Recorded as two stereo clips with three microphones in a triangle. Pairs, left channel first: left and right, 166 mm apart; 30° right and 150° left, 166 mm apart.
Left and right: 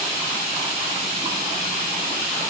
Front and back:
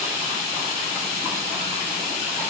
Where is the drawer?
I don't hear a drawer.